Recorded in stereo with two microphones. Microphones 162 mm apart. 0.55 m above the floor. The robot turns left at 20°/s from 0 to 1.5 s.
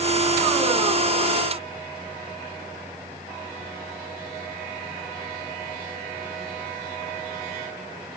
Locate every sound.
Only background noise.